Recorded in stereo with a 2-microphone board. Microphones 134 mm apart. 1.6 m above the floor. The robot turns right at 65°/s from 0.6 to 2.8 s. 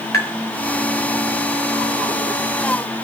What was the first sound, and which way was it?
Tapping, 25° left (ahead or behind).